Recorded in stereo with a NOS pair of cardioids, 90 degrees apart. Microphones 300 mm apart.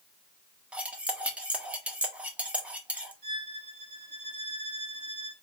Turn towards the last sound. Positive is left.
turn(degrees=-35)